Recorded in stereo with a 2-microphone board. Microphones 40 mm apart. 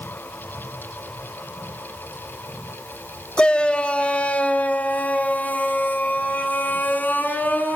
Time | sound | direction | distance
3.4 | a shout | 20° left (ahead or behind) | 1.9 m